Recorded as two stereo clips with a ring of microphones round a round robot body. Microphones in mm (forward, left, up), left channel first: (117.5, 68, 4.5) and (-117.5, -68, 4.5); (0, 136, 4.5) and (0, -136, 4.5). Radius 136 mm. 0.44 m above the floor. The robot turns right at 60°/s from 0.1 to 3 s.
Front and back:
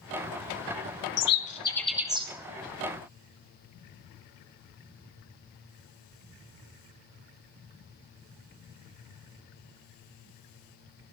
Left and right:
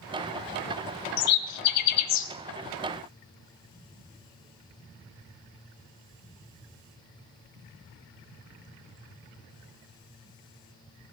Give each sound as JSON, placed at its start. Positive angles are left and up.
{"t": 1.2, "sound": "a bird", "azimuth_deg": 75, "distance_m": 0.9}